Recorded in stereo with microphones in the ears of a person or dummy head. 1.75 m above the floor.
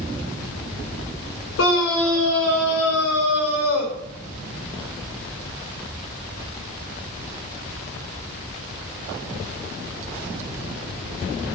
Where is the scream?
75° left (ahead or behind), 5.5 m; by 3.9 s 80° left, 7.5 m.